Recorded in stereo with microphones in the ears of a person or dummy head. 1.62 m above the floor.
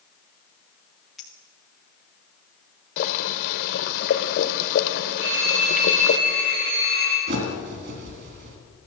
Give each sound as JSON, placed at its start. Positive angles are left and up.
{"t": 1.2, "sound": "a clink", "side_deg": 0, "distance_m": 1.3}
{"t": 3.0, "sound": "boiling", "side_deg": 65, "distance_m": 1.1}
{"t": 5.2, "sound": "a phone ringing", "side_deg": -65, "distance_m": 5.5}
{"t": 7.3, "sound": "a bird", "side_deg": -60, "distance_m": 3.5}